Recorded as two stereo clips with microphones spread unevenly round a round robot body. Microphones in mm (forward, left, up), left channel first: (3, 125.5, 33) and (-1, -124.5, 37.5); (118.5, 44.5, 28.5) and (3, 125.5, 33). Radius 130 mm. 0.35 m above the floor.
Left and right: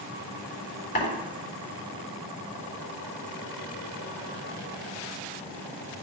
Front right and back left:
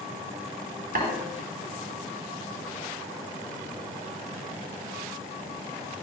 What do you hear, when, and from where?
0.9 s tapping: 145° left, 4 m